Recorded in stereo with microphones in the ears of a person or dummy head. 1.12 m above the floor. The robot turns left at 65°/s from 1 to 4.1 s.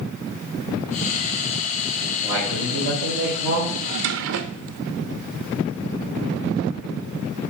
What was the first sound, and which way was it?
A man speaking, 35° right.